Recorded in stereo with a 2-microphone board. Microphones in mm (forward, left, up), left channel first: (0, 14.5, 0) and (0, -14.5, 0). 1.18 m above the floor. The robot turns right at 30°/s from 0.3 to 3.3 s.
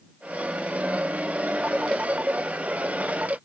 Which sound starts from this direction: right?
A phone ringing, at 1.6 s.